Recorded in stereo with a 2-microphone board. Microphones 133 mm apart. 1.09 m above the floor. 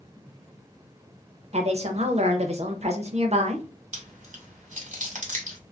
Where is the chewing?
65° right (ahead or behind), 1.3 m.